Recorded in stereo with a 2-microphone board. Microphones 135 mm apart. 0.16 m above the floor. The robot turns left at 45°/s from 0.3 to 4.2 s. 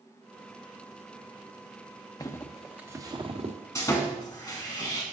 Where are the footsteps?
25° left (ahead or behind), 0.8 m; by 3.6 s 55° right (ahead or behind), 1.7 m.